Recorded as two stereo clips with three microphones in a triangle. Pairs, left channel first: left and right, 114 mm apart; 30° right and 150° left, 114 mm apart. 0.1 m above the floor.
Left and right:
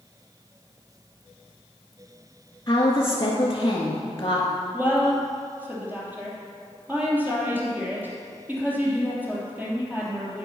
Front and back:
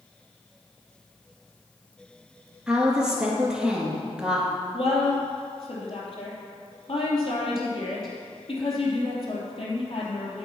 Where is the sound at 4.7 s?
15° right, 3 m.